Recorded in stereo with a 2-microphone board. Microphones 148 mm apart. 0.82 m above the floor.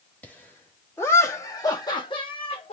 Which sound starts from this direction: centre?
Laughter, at 0.2 s.